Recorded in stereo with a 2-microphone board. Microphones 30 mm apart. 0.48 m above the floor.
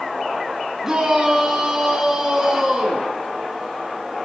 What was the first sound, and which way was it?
A shout, 15° right (ahead or behind).